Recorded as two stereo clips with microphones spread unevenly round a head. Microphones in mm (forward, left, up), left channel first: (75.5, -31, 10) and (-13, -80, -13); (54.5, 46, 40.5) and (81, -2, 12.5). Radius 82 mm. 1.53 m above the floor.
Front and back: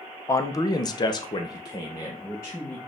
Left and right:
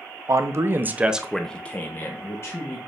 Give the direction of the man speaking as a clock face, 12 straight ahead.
1 o'clock.